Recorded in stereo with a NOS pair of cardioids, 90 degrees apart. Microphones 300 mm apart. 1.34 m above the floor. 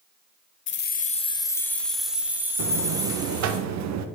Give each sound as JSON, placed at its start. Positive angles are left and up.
{"t": 0.7, "sound": "keys jangling", "azimuth_deg": 40, "distance_m": 0.6}
{"t": 2.6, "sound": "a buzzer", "azimuth_deg": -65, "distance_m": 0.8}